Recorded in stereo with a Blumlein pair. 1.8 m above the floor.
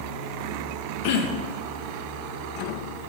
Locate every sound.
1.0 s throat clearing: 45° left, 0.8 m